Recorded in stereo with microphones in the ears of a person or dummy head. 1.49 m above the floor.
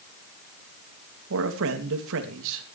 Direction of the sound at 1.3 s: 75° right (ahead or behind).